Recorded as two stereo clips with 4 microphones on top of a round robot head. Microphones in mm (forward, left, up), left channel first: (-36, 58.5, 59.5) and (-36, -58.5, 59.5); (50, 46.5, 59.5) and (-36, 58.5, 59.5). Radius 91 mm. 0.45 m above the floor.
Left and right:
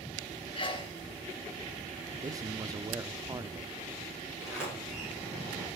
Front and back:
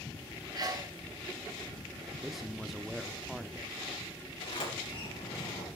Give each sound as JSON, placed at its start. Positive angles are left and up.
{"t": 0.6, "sound": "a sneeze", "azimuth_deg": 135, "distance_m": 4.5}
{"t": 2.2, "sound": "a man speaking", "azimuth_deg": -100, "distance_m": 0.8}
{"t": 4.4, "sound": "a sliding door", "azimuth_deg": -5, "distance_m": 8.0}